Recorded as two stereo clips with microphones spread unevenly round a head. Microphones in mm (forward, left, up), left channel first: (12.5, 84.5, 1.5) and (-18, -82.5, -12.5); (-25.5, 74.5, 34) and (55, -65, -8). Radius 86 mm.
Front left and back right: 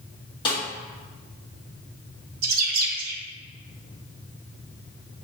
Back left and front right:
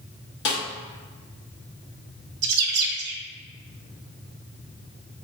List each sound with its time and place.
0.5 s a snare drum: 145° left, 1.6 m
2.4 s a bird: 60° right, 0.8 m